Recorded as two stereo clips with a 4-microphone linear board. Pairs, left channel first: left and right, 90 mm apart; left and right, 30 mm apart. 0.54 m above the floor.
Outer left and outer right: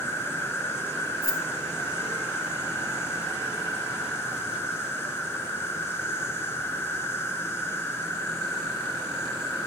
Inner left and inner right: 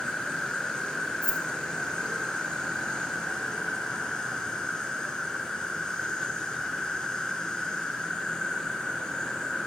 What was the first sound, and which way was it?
An insect, 25° left (ahead or behind).